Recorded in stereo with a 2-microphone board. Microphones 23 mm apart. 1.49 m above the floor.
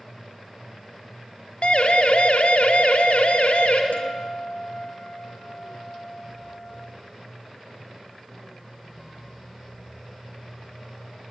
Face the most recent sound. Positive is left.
turn(degrees=75)  # may be behind; listen again after turning